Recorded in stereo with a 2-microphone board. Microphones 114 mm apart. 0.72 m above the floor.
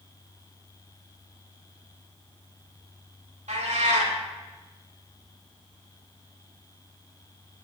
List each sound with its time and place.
3.5 s a cat meowing: 80° right, 1.4 m